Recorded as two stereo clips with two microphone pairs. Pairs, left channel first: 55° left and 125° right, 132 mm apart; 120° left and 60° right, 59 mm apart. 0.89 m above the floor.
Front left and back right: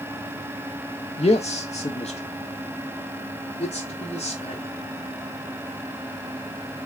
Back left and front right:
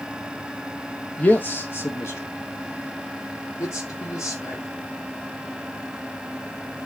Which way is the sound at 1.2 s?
65° left.